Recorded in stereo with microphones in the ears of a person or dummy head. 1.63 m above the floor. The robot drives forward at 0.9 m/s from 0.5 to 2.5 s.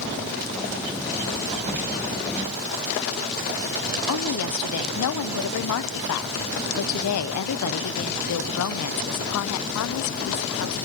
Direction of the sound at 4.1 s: 75° left (ahead or behind).